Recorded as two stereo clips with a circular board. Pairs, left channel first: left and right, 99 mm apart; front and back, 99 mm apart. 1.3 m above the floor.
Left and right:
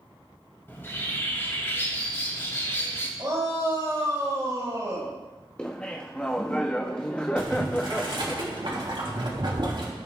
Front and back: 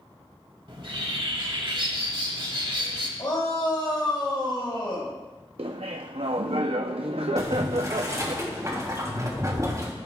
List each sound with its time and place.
0.7 s a bird: 155° left, 2 m
3.2 s a shout: 40° right, 4.5 m
5.6 s laughter: 170° left, 0.5 m
7.4 s boiling: 125° right, 2.5 m